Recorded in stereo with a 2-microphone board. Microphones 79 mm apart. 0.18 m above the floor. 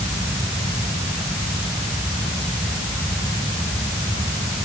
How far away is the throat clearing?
No throat clearing in this recording.